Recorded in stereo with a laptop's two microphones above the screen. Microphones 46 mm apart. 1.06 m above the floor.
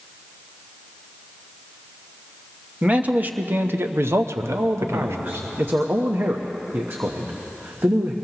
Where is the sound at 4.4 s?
50° right (ahead or behind), 1.0 m.